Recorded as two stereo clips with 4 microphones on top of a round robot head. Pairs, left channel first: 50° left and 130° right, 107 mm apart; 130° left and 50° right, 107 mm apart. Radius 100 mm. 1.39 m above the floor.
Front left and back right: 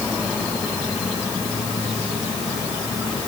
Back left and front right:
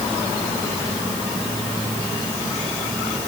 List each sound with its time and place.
Only background noise.